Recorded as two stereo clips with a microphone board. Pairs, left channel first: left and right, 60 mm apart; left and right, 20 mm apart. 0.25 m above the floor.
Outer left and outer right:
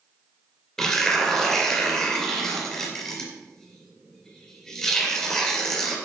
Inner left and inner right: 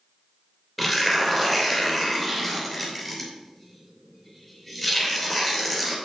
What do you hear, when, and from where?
0.8 s tearing paper: 10° left (ahead or behind), 2.5 m